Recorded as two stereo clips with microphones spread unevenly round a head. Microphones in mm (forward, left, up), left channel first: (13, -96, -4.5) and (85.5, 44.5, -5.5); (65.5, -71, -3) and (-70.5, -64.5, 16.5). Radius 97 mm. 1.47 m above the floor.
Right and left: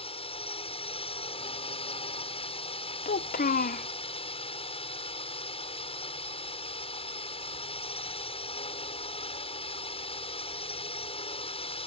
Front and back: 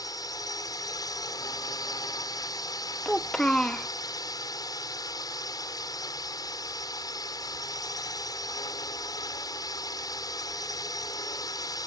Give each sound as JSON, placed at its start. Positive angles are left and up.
{"t": 0.0, "sound": "a drone", "azimuth_deg": -65}
{"t": 3.0, "sound": "a child speaking", "azimuth_deg": -95}